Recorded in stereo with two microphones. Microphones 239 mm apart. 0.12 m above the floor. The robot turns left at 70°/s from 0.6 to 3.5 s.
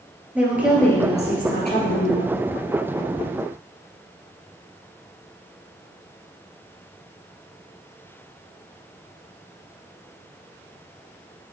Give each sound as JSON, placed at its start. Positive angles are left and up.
{"t": 0.3, "sound": "a woman speaking", "azimuth_deg": -170, "distance_m": 3.0}